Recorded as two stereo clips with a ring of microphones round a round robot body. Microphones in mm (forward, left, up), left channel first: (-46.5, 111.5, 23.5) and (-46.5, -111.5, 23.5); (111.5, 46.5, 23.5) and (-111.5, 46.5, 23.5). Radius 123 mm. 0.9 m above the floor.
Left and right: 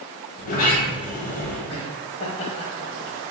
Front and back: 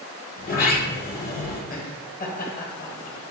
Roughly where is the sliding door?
Ahead left.